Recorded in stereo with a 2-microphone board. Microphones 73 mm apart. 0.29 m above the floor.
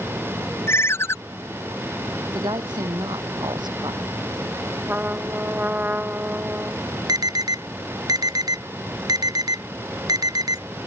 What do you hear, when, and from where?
0.7 s a ringtone: 40° left (ahead or behind)
2.3 s a woman speaking: 75° right (ahead or behind)
4.9 s a trumpet: 25° right (ahead or behind)
7.1 s an alarm: 65° right (ahead or behind)